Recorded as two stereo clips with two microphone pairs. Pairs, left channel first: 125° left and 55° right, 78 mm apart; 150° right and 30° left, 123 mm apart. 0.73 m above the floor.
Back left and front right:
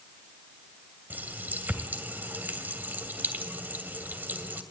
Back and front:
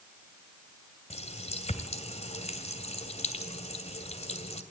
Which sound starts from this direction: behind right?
A running tap, at 1.1 s.